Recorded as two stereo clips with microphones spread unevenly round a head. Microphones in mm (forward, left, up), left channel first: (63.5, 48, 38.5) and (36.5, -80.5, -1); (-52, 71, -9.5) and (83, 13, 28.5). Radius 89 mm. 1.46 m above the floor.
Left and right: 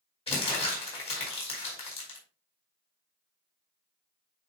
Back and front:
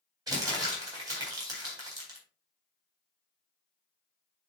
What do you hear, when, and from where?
0.3 s crumpling: 40° left, 4.5 m